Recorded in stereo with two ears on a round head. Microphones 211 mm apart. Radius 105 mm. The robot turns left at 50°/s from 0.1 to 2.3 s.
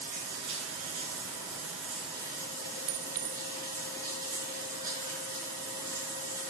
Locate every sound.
0.0 s running water: 35° right, 5.5 m; by 6.5 s 145° right, 5.5 m
2.9 s a clink: 65° right (ahead or behind), 1.3 m